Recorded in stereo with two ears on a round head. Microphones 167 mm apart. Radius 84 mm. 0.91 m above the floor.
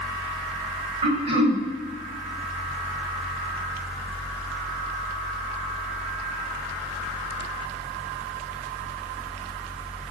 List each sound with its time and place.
1.0 s throat clearing: 35° right (ahead or behind), 2.5 m